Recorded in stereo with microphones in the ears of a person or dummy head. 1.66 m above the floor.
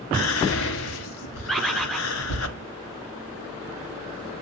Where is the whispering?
80° left, 1.4 m.